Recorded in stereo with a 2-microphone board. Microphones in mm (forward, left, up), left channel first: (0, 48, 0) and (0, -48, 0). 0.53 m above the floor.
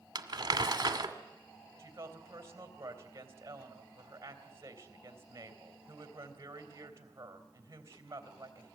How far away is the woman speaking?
About 3.5 m.